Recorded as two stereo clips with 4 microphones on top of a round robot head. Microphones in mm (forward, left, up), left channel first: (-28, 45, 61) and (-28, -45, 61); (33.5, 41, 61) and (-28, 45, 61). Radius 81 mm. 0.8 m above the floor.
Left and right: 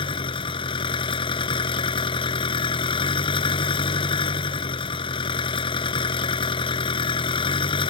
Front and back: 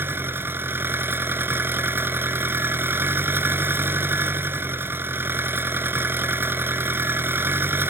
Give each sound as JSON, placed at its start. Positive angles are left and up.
{"t": 0.0, "sound": "an engine running", "azimuth_deg": 120}